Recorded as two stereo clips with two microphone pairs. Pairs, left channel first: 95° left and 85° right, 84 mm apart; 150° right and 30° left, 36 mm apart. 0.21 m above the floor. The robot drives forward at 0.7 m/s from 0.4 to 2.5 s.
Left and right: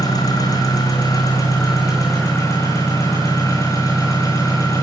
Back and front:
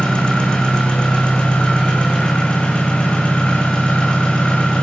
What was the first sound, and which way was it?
An engine running, 140° left.